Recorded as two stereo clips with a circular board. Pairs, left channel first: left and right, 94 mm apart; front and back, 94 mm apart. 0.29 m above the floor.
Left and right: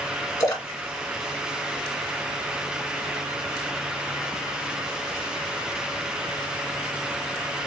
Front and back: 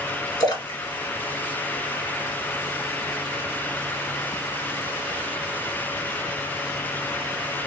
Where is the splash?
40° left, 1.3 m.